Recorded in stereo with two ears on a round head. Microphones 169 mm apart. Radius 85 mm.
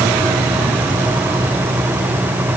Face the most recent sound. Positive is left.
No sound to turn to.